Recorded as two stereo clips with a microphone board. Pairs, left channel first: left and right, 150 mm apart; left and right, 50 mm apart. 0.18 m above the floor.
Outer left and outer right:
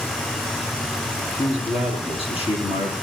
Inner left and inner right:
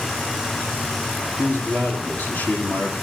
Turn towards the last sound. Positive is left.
turn(degrees=40)  # may be behind; listen again after turning